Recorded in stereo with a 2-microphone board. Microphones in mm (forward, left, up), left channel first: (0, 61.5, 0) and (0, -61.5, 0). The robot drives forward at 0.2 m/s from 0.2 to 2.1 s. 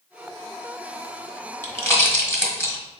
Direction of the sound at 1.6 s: 20° left (ahead or behind).